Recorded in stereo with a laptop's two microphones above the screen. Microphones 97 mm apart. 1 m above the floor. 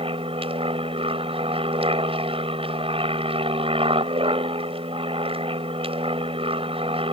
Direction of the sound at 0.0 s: 70° right (ahead or behind).